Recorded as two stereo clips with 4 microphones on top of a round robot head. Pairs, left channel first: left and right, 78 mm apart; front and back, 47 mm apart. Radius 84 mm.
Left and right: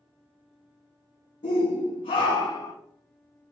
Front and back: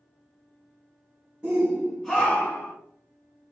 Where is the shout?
115° left, 0.7 m; by 2.7 s 40° left, 0.6 m.